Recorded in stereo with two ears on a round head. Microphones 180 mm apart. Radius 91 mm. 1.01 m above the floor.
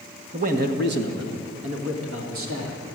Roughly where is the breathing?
I don't hear breathing.